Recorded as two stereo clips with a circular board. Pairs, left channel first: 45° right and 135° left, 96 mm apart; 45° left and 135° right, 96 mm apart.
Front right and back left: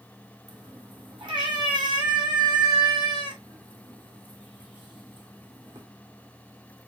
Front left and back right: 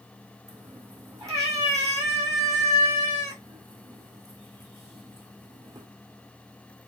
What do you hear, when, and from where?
0.5 s a cat meowing: 175° left, 2 m